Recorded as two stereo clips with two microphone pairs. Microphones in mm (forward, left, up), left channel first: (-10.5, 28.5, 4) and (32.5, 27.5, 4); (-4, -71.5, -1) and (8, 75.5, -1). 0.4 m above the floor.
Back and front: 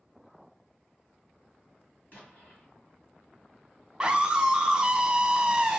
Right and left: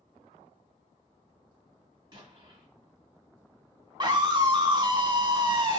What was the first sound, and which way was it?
An explosion, 140° left.